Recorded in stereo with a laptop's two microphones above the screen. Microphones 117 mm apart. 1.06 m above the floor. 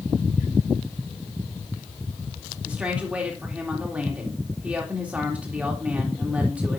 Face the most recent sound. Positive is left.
turn(degrees=-10)  # may be behind; listen again after turning